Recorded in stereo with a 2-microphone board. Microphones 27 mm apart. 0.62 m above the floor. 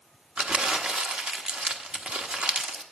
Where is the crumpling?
50° right (ahead or behind), 1.0 m.